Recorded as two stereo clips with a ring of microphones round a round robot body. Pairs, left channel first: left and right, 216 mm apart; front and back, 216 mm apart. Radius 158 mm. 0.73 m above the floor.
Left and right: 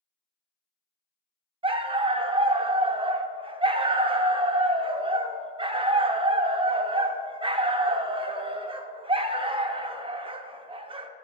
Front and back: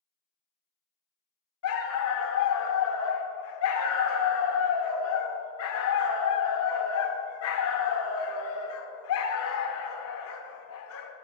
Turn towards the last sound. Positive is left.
turn(degrees=-25)